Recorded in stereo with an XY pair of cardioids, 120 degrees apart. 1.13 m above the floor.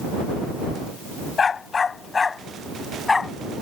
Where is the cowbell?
I don't hear a cowbell.